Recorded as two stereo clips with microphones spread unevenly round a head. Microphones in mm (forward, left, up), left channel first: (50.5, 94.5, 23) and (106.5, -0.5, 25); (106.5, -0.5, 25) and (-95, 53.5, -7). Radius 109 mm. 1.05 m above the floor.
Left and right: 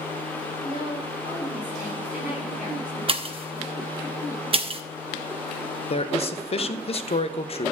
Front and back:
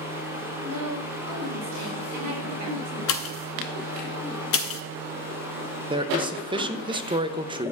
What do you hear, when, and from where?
0.6 s a woman speaking: 175° right, 3.5 m
3.1 s a pop: 25° right, 0.7 m
5.9 s a man speaking: 105° left, 0.8 m